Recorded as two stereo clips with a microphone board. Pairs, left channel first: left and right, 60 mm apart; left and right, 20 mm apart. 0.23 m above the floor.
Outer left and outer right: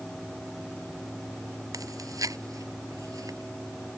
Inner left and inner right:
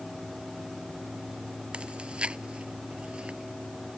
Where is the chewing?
75° right (ahead or behind).